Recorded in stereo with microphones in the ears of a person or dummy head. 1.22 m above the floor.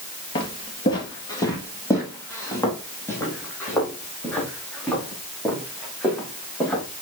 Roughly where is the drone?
I don't hear a drone.